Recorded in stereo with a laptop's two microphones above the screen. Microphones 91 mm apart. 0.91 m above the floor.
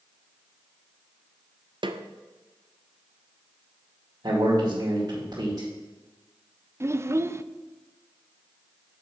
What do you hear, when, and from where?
1.8 s a snare drum: 60° right (ahead or behind), 0.5 m
4.2 s a man speaking: 50° right (ahead or behind), 2.5 m
6.8 s a child speaking: 30° right (ahead or behind), 0.5 m